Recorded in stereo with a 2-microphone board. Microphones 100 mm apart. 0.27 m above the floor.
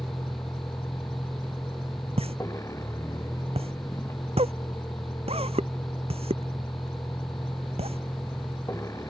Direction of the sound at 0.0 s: 30° left (ahead or behind).